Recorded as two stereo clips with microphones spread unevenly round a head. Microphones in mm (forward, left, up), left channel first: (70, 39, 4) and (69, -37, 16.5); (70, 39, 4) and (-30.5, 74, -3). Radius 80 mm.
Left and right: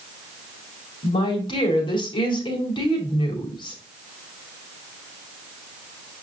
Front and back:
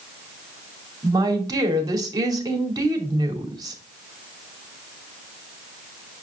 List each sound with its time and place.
1.0 s a woman speaking: 110° left, 2 m